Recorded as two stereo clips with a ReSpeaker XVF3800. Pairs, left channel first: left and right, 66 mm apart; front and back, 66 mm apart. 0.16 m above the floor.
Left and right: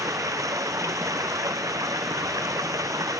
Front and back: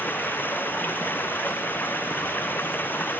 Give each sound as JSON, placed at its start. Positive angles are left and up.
{"t": 0.0, "sound": "running water", "azimuth_deg": -60}